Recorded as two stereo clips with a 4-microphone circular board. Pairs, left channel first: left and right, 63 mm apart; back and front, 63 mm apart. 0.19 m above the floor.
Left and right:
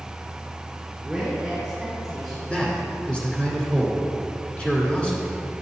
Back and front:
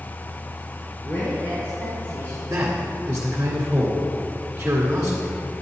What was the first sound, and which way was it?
A woman speaking, 170° right.